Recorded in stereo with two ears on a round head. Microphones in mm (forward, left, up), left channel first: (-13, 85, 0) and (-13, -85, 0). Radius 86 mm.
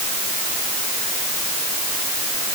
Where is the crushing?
No crushing in this recording.